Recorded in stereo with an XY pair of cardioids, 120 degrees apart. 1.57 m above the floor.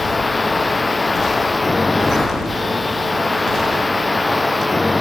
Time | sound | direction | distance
0.0 | a machine running | 15° left | ?